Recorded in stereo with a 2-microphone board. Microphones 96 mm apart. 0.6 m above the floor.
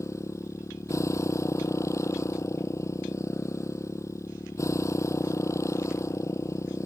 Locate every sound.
0.0 s a motorcycle: 30° left (ahead or behind)